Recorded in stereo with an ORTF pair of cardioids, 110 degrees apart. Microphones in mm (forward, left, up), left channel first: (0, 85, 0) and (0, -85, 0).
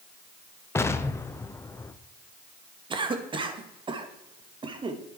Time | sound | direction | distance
0.8 | an explosion | 15° left | 1.0 m
2.9 | a cough | 30° right | 2.5 m